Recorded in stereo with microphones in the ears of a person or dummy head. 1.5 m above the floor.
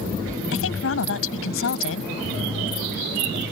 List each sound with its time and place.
0.5 s a woman speaking: 80° left